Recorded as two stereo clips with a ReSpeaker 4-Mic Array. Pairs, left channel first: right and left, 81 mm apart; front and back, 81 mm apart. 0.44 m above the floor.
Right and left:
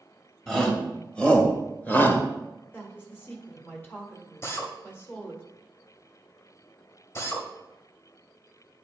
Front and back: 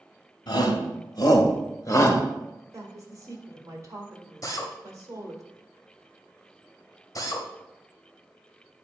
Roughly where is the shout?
Ahead.